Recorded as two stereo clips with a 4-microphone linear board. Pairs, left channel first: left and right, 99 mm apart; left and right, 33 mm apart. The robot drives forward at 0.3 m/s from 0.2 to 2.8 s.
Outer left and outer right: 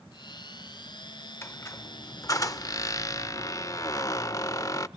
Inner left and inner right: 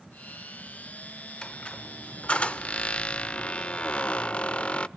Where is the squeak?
25° left (ahead or behind), 0.6 m; by 4.9 s 35° left (ahead or behind), 0.5 m.